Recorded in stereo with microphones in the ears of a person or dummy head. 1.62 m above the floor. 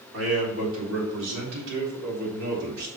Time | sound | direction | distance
0.1 | a man speaking | 85° right | 4 m